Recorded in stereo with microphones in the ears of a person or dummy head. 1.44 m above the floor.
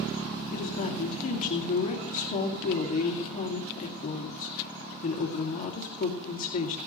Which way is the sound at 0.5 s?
45° left (ahead or behind).